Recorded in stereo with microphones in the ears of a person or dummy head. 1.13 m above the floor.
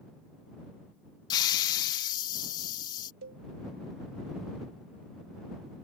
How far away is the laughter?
No laughter in this recording.